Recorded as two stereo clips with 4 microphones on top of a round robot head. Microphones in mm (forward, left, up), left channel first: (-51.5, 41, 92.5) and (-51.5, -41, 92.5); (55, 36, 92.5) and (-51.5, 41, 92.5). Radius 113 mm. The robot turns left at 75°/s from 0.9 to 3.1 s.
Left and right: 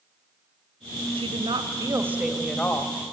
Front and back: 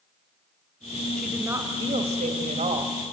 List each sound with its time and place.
1.2 s a woman speaking: 90° right, 2 m; by 3.1 s 125° left, 2 m